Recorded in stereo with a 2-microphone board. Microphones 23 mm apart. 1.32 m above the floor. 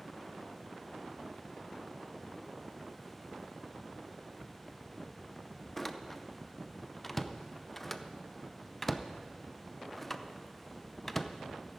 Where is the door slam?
10° left (ahead or behind), 0.5 m.